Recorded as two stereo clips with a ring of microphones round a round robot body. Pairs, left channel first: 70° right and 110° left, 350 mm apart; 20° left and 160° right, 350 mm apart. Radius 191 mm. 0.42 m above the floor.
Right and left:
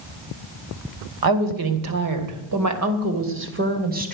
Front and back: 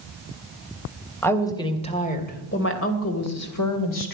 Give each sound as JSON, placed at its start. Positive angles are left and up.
{"t": 1.2, "sound": "a woman speaking", "azimuth_deg": 105, "distance_m": 3.0}